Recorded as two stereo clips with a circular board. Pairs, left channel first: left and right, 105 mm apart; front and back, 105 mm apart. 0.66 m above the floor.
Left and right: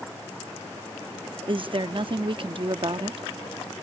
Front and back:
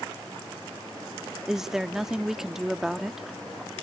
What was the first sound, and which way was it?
A woman speaking, 95° right.